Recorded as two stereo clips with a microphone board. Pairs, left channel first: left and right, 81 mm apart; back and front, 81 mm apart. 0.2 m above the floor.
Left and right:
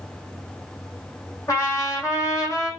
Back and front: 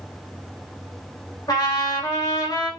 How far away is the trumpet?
About 4.5 m.